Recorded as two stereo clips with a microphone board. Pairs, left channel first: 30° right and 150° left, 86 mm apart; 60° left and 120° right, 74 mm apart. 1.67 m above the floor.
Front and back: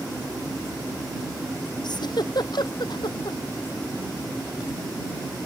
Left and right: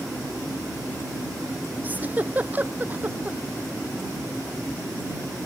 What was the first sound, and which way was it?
A giggle, 55° right.